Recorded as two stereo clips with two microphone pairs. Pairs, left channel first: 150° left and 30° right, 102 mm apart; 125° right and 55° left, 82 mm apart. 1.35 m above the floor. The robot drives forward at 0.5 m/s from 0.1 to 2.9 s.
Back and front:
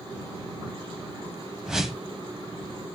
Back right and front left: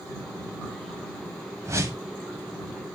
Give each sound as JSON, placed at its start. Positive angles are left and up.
{"t": 1.6, "sound": "a whoosh", "azimuth_deg": 50, "distance_m": 1.4}